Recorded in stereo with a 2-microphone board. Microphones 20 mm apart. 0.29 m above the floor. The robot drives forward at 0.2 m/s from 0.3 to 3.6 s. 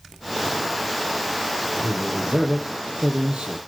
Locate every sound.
1.8 s a man speaking: 75° right (ahead or behind), 7 m; by 3.6 s 70° right (ahead or behind), 7 m